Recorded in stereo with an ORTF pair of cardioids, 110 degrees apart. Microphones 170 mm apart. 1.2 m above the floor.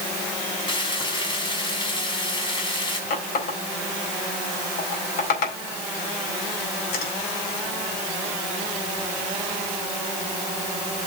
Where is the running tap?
70° left, 4 m.